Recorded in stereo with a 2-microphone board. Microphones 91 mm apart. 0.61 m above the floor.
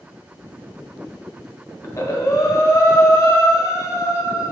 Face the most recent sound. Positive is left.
turn(degrees=35)  # may be behind; listen again after turning